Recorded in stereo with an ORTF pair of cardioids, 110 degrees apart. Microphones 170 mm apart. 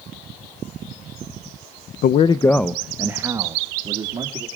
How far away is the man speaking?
About 0.5 m.